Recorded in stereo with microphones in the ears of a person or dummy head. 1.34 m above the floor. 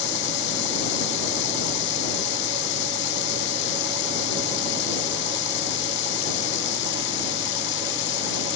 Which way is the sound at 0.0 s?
80° left.